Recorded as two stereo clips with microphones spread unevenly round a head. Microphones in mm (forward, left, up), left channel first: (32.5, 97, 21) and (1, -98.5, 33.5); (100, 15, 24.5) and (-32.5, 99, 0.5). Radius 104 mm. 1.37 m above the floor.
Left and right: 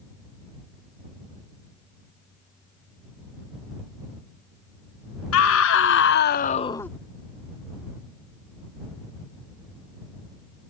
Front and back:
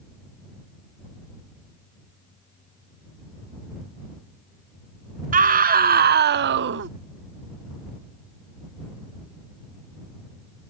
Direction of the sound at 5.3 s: 110° left.